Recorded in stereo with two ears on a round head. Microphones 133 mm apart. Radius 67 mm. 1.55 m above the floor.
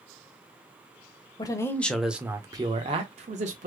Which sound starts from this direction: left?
A man speaking, at 1.4 s.